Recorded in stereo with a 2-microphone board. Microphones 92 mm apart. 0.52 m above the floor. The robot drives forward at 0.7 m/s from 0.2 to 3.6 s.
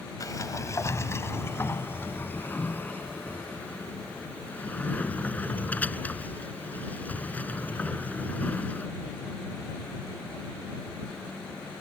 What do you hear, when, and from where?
0.2 s a sliding door: 40° left (ahead or behind); by 8.9 s 15° left (ahead or behind)